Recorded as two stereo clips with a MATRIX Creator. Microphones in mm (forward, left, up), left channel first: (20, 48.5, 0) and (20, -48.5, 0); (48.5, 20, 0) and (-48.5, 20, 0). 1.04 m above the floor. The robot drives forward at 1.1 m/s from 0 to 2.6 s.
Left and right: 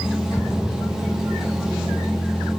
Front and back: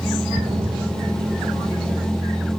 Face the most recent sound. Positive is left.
turn(degrees=180)